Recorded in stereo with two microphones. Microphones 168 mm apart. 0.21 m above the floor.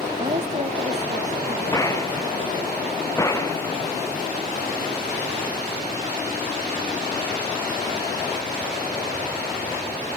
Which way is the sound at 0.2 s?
40° right (ahead or behind).